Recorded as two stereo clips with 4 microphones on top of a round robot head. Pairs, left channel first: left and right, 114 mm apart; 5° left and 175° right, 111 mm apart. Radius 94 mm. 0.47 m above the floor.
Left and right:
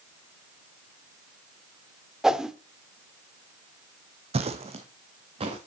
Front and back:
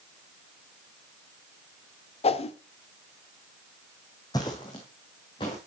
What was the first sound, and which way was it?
A whoosh, 5° right.